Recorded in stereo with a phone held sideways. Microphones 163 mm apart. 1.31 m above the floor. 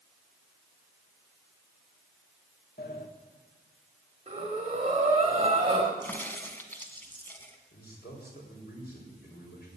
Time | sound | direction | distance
2.8 | a sliding door | 75° left (ahead or behind) | 1.5 m
4.3 | breathing | 40° right (ahead or behind) | 2.5 m
6.0 | a crack | 10° left (ahead or behind) | 1.7 m
7.7 | a man speaking | 80° left | 5 m